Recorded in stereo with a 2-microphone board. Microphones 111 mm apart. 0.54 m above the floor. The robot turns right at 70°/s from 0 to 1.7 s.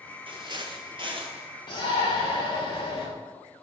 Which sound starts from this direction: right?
Footsteps, at 0.3 s.